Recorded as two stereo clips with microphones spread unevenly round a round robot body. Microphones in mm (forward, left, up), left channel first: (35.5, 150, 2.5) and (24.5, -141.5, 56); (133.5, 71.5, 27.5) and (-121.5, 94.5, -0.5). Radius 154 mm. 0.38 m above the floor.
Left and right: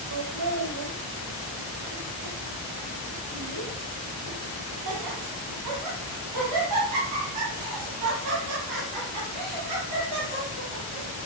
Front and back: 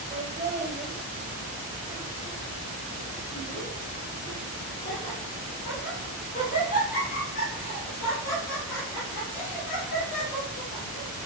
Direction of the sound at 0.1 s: 120° right.